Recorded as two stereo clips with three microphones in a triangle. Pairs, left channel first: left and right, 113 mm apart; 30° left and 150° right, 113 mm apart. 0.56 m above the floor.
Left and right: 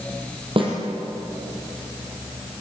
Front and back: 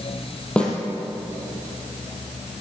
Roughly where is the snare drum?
Ahead right.